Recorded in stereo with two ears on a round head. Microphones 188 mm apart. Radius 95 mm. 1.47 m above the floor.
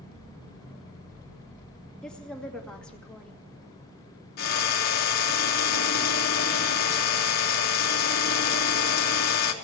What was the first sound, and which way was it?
A woman speaking, 5° left (ahead or behind).